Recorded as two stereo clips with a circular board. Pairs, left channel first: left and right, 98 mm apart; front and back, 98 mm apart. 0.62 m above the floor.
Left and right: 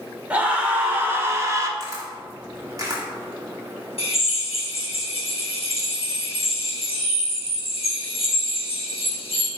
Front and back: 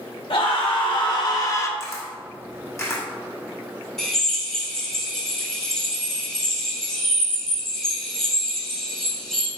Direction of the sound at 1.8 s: 50° right.